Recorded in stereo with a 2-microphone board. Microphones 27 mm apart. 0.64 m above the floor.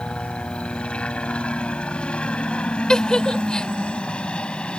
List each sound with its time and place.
0.0 s a helicopter: 45° left (ahead or behind)
2.9 s a giggle: 30° left (ahead or behind)